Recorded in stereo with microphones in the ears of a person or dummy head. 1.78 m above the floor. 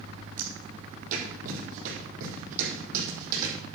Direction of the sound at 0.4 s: 40° right (ahead or behind).